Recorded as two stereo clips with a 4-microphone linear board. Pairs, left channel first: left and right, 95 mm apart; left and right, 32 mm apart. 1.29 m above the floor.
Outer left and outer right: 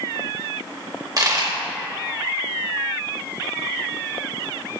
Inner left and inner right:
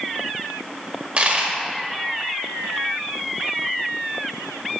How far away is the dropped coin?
About 1.5 m.